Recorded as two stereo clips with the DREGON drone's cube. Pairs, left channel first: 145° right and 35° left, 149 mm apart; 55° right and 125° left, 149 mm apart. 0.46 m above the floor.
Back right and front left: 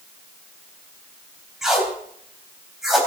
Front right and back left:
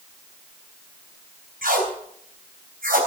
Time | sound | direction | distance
1.6 | tape being pulled | 120° left | 3.5 m